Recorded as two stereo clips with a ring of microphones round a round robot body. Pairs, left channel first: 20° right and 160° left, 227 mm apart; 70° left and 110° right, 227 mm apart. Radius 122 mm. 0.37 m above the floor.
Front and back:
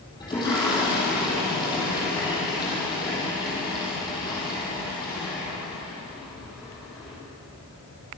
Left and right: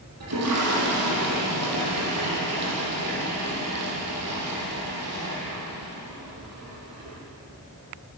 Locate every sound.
0.2 s a toilet flushing: 95° right, 8 m